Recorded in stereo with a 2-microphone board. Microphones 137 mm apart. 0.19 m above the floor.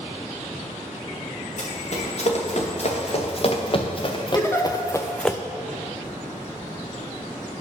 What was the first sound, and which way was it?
Running footsteps, 55° left (ahead or behind).